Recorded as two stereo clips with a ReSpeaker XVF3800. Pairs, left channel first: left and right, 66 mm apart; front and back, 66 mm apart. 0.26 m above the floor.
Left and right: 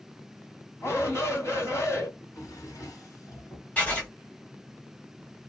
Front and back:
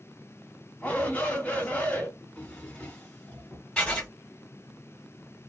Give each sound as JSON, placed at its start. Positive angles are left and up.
{"t": 0.8, "sound": "a shout", "azimuth_deg": 65, "distance_m": 2.0}
{"t": 2.2, "sound": "a drawer", "azimuth_deg": 70, "distance_m": 1.7}
{"t": 3.8, "sound": "writing", "azimuth_deg": 55, "distance_m": 1.7}